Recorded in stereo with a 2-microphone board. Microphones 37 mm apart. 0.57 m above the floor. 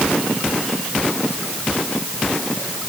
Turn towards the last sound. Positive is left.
No sound to turn to.